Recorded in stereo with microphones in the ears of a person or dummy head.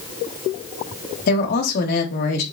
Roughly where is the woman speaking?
Left.